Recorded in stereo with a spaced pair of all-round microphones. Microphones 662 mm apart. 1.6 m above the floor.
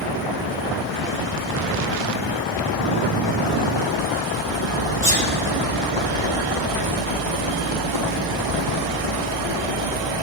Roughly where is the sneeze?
Left.